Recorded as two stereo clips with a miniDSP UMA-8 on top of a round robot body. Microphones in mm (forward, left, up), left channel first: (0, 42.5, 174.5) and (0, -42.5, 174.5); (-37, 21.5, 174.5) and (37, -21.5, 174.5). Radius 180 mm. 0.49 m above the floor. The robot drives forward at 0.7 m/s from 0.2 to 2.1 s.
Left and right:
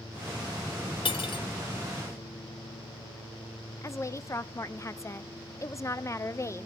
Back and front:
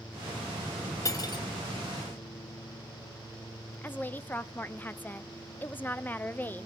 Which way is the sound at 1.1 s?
100° left.